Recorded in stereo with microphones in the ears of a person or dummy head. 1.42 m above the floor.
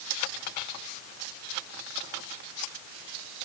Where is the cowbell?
I don't hear a cowbell.